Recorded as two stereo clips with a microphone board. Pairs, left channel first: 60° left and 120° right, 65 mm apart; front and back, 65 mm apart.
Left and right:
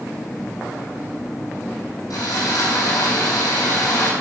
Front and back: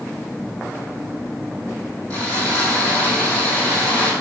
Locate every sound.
2.1 s sawing: 70° left, 5 m